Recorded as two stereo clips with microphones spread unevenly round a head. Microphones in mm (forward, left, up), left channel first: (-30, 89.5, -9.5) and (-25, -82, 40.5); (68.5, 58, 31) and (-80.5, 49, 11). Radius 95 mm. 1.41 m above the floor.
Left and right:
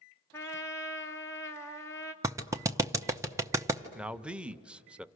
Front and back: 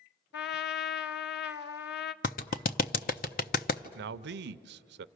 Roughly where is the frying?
I don't hear frying.